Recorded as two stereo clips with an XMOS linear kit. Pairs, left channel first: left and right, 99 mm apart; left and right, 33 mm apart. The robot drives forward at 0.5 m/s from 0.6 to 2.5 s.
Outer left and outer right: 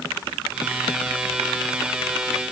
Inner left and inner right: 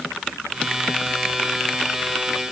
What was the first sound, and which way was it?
Only background noise.